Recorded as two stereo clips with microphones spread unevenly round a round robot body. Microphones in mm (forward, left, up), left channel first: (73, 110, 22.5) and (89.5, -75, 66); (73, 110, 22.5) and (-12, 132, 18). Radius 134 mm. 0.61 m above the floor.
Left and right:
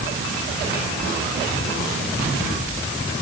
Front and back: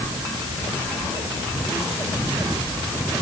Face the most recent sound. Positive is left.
No sound to turn to.